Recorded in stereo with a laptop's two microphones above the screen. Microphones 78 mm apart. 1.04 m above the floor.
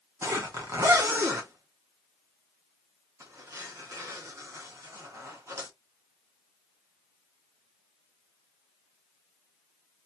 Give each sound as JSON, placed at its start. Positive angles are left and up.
{"t": 0.2, "sound": "a zipper", "side_deg": -40, "distance_m": 1.2}